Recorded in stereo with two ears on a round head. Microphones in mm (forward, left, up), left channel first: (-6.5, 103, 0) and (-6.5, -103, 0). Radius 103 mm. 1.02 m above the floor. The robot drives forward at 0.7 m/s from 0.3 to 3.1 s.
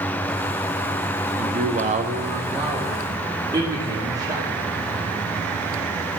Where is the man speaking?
30° right (ahead or behind), 0.7 m; by 4.5 s 15° right (ahead or behind), 1.1 m.